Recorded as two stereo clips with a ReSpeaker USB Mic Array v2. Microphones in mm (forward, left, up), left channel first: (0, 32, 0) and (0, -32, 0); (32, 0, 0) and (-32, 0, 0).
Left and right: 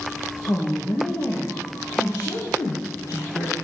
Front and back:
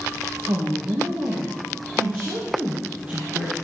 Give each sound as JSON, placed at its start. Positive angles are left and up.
{"t": 0.5, "sound": "a woman speaking", "azimuth_deg": 135, "distance_m": 2.5}